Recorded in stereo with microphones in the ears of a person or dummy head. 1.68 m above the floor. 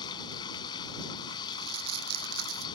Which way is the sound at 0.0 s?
30° left (ahead or behind).